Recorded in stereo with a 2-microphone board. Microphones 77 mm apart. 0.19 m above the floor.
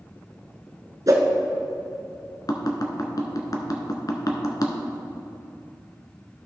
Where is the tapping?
55° left (ahead or behind), 1.0 m.